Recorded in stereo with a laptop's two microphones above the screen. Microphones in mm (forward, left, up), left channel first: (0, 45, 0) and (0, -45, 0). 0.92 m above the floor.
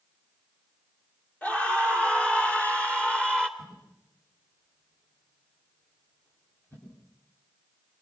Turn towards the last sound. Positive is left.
turn(degrees=20)  # may be behind; listen again after turning